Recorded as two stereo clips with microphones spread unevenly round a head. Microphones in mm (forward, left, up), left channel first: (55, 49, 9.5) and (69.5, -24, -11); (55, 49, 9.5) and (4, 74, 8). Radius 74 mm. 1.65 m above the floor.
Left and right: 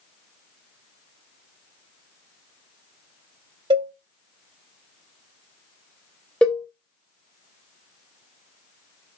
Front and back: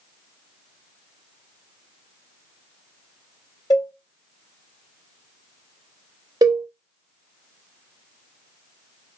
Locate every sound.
3.7 s a cowbell: 70° right, 1.2 m
6.4 s a cowbell: straight behind, 0.5 m